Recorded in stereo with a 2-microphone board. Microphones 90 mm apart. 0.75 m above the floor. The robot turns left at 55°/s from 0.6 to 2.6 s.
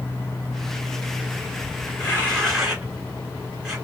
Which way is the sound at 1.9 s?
35° left (ahead or behind).